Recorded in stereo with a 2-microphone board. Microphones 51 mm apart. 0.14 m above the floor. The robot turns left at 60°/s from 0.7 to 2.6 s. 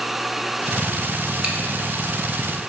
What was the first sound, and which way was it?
Chewing, 15° right (ahead or behind).